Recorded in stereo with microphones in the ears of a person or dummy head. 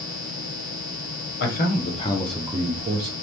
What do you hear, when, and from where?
1.4 s a man speaking: 50° left (ahead or behind), 0.9 m; by 3.1 s 50° right (ahead or behind), 0.7 m